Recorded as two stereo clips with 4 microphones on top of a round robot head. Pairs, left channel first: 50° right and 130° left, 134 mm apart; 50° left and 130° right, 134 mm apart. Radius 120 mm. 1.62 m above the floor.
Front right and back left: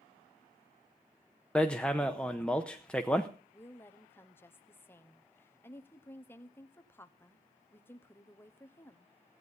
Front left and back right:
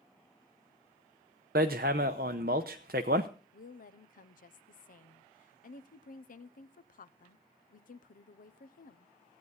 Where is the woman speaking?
25° left, 0.9 m.